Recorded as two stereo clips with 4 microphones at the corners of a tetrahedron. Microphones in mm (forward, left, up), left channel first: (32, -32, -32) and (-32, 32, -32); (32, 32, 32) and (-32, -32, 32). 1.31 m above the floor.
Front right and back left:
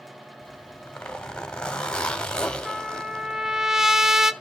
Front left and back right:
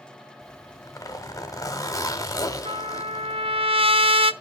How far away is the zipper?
About 1.4 m.